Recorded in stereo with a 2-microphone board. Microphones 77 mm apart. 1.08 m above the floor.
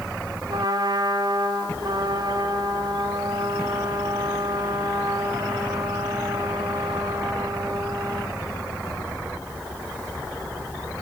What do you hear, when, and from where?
0.5 s a trumpet: 70° right (ahead or behind), 3 m